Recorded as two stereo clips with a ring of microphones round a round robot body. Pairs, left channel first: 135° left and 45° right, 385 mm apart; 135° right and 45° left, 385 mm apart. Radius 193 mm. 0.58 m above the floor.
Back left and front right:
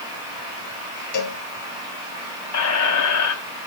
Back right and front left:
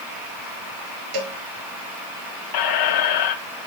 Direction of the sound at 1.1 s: 85° left.